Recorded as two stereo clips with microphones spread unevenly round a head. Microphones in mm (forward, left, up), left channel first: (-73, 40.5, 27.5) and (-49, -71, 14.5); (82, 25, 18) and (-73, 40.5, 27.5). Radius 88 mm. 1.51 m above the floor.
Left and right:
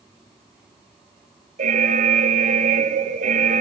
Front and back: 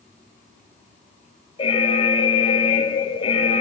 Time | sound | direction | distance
1.6 | an alarm | 65° right | 2.5 m